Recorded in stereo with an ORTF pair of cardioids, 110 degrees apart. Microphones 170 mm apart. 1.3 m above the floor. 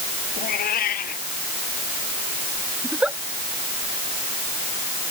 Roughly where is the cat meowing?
Ahead left.